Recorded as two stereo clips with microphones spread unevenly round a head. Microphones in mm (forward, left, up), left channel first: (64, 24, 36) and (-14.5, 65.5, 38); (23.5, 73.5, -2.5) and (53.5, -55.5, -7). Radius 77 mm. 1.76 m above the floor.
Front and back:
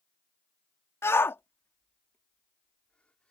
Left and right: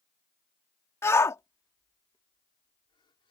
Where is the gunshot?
I don't hear a gunshot.